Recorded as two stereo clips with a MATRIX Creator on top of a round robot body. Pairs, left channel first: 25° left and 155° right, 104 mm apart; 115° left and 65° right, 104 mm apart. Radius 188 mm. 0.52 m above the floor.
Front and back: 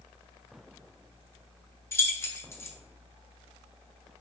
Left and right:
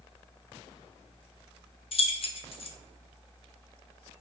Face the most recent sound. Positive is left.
turn(degrees=85)